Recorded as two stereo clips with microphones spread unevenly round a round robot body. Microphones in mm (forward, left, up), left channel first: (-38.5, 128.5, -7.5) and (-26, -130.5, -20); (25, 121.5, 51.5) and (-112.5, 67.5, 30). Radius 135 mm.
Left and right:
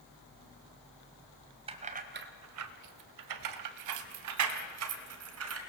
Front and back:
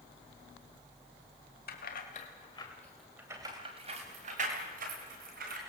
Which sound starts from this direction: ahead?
Keys jangling, at 1.7 s.